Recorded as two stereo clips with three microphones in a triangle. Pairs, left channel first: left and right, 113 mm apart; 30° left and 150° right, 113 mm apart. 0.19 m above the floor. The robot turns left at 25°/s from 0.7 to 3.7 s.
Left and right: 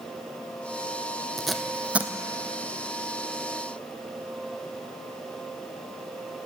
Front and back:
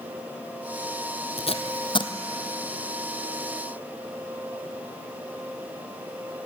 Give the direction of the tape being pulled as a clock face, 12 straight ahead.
12 o'clock.